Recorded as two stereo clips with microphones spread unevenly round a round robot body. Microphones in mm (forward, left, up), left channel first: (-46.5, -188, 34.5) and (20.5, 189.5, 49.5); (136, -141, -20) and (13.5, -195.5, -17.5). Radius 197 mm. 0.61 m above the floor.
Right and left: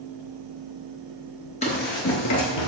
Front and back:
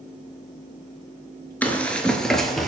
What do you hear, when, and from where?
1.6 s running footsteps: 45° right, 0.6 m; by 2.7 s 65° right, 0.9 m